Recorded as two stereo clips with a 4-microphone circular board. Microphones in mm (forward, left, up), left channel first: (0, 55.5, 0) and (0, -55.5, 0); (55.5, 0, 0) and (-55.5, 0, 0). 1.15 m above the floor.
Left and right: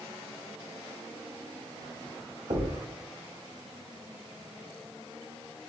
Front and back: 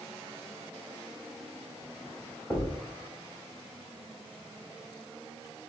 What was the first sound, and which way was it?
A thud, 80° right.